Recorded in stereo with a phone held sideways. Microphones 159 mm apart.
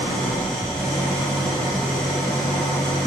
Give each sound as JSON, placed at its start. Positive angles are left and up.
{"t": 0.0, "sound": "an engine running", "side_deg": 5, "distance_m": 2.5}